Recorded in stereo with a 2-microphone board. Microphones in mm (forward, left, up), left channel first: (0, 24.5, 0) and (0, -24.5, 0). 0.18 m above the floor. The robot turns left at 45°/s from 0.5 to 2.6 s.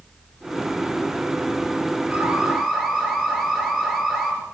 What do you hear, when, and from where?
2.1 s an alarm: 25° right (ahead or behind), 5 m; by 4.3 s 5° right (ahead or behind), 5 m